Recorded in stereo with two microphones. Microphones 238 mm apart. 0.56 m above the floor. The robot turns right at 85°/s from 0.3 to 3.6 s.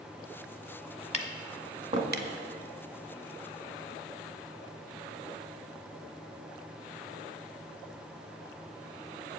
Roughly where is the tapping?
Left.